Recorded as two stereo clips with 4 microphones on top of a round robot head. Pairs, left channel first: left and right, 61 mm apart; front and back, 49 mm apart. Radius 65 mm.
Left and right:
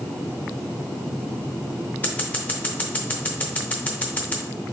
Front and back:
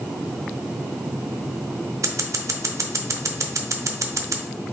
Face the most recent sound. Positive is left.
turn(degrees=160)